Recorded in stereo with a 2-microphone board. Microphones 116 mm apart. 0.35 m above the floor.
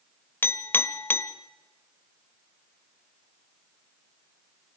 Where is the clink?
15° left (ahead or behind), 0.9 m.